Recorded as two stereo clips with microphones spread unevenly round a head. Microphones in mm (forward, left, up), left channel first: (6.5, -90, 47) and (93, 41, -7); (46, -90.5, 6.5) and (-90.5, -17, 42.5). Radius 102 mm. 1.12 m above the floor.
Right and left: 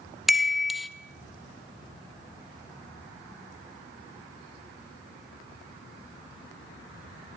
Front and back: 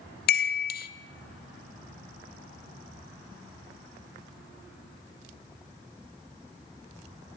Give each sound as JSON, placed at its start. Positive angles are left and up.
{"t": 0.3, "sound": "a chime", "azimuth_deg": -30, "distance_m": 0.9}